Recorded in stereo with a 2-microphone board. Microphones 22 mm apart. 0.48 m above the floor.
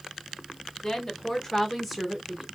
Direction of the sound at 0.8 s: 30° left (ahead or behind).